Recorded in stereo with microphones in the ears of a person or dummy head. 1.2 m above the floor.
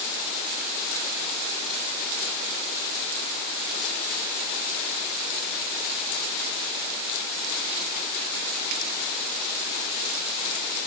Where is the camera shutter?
I don't hear a camera shutter.